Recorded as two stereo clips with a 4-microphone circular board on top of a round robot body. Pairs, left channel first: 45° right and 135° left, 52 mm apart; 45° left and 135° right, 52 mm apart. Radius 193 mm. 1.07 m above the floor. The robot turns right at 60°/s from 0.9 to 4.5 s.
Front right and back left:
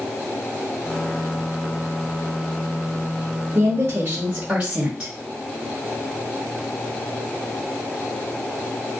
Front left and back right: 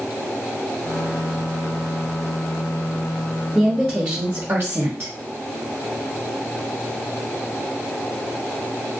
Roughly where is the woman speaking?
Behind left.